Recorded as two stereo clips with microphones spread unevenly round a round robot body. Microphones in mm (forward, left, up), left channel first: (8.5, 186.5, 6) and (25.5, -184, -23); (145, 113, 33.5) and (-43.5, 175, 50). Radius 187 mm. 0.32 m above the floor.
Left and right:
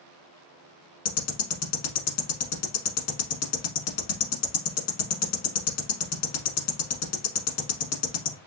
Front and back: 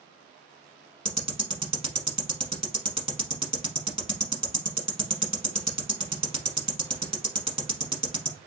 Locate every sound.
1.1 s ticking: 95° left, 1.2 m